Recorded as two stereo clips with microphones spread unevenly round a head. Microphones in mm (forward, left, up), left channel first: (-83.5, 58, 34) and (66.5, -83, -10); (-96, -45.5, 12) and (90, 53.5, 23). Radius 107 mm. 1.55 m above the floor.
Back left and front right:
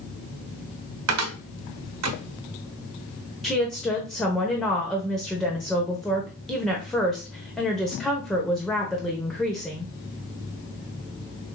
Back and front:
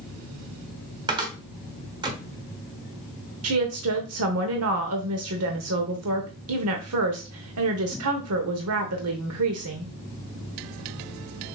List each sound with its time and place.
1.1 s a cupboard door: 45° right, 1.0 m
3.4 s a woman speaking: 45° left, 0.9 m